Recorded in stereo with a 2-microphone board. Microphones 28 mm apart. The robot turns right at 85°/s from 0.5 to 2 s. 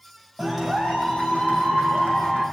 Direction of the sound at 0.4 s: 15° right.